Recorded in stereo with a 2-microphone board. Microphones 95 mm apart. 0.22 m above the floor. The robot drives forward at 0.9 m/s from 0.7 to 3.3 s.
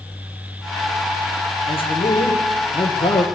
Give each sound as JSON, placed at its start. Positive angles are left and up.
{"t": 1.7, "sound": "a man speaking", "side_deg": 75, "distance_m": 6.0}